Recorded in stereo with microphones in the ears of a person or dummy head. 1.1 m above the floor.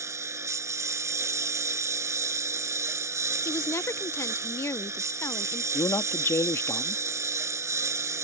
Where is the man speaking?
15° left (ahead or behind).